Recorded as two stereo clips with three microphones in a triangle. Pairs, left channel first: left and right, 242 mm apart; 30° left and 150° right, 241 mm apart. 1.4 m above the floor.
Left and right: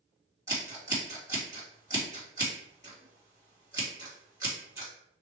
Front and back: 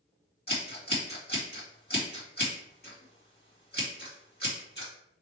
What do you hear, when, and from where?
0.5 s scissors: 15° right, 2 m